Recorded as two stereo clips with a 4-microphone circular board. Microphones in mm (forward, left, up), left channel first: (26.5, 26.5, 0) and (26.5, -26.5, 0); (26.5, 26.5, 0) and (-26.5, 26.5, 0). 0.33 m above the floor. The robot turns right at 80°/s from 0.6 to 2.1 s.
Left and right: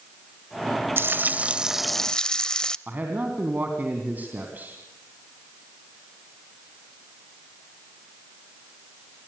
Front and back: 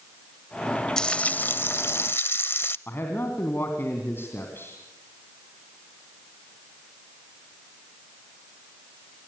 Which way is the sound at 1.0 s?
75° right.